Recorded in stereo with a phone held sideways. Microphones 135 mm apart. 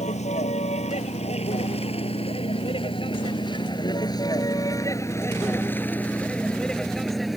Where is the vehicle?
60° left (ahead or behind); by 7.4 s centre (ahead or behind).